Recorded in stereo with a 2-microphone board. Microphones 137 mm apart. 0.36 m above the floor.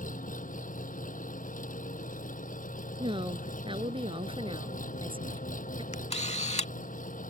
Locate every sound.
0.0 s an engine running: 75° left (ahead or behind)
3.0 s a woman speaking: 40° right (ahead or behind)
5.9 s a camera shutter: 50° left (ahead or behind)